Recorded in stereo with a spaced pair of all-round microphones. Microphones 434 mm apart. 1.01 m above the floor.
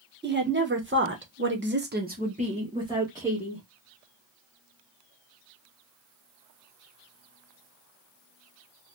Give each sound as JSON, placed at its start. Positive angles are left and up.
{"t": 0.2, "sound": "a woman speaking", "side_deg": -25, "distance_m": 1.0}